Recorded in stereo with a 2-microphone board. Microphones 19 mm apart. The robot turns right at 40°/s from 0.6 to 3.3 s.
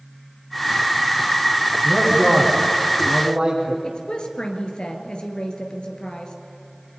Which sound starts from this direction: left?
A woman speaking, at 3.8 s.